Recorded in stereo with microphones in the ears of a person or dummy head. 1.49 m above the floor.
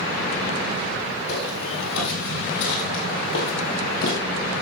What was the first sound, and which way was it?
Footsteps, 65° left (ahead or behind).